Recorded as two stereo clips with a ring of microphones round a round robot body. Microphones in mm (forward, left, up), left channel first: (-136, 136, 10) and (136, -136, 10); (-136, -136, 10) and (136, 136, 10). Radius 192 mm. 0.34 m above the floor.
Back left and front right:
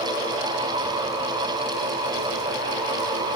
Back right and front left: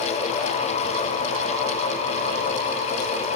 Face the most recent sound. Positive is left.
No sound to turn to.